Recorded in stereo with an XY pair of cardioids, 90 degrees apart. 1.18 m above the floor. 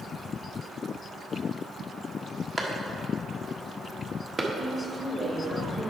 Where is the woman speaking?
20° right, 1.8 m.